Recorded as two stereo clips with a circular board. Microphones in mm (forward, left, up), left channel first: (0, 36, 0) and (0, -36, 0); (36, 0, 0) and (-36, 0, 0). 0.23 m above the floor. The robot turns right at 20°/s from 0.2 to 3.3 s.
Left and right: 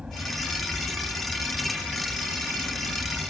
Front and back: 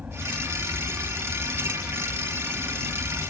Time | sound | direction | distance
0.0 | an aircraft | 145° right | ?